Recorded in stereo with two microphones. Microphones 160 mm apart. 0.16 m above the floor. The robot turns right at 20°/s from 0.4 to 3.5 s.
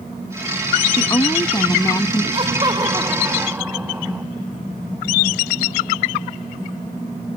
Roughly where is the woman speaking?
Left.